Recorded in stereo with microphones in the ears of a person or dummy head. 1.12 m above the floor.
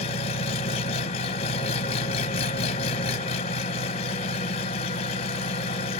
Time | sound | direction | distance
0.0 | an engine running | 35° left (ahead or behind) | 0.9 m